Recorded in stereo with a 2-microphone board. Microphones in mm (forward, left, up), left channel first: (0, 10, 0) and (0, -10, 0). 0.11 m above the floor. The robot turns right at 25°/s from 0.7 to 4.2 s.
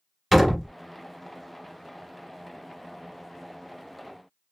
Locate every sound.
0.3 s a door slam: 5° left (ahead or behind), 1.0 m